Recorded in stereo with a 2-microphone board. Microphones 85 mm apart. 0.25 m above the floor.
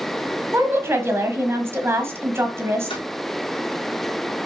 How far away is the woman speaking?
About 1.3 m.